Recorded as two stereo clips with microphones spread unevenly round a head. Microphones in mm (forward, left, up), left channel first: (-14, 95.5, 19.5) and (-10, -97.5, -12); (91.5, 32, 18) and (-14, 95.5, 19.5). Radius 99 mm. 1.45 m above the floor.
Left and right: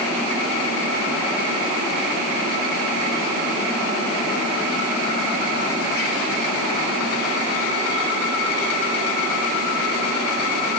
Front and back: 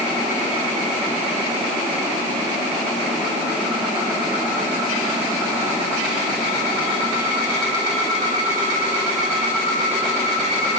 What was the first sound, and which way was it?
Only background noise.